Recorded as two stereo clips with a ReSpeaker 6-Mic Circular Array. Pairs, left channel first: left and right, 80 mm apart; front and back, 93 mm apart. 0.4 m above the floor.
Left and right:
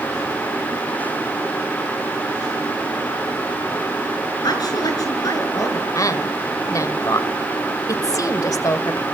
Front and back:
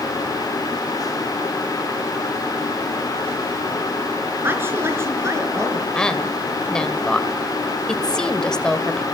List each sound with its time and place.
4.4 s a woman speaking: 115° left, 5 m; by 5.8 s 130° left, 5 m
6.0 s a woman speaking: 80° left, 1.7 m